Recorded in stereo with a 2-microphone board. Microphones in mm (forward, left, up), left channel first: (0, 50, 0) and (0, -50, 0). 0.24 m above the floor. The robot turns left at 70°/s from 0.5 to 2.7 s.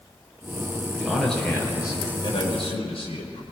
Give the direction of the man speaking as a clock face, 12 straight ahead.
5 o'clock.